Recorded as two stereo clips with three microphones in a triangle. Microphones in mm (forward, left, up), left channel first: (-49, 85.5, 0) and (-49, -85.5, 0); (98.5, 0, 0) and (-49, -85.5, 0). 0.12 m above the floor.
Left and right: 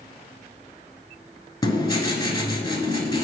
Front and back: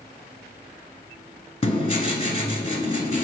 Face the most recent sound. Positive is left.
turn(degrees=45)